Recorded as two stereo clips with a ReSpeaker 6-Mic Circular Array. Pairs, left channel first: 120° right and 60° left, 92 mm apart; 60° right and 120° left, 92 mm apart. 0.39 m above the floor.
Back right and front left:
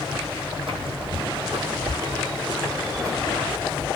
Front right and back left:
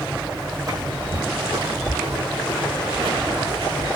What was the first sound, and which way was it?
Footsteps, 70° left.